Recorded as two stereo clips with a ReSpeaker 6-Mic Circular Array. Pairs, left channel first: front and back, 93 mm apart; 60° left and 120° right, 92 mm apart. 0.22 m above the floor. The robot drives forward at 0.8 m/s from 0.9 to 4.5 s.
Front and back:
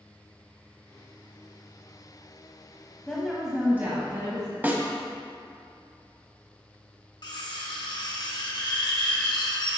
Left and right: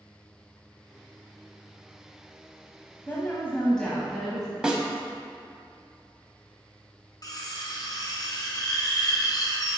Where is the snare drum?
175° left, 0.8 m.